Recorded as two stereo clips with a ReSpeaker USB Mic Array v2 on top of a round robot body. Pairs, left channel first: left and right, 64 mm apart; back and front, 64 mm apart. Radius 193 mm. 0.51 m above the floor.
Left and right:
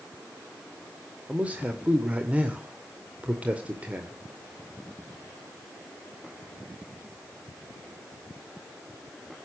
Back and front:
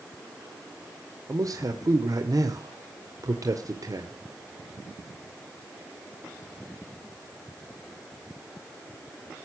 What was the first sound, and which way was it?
A man speaking, 20° right.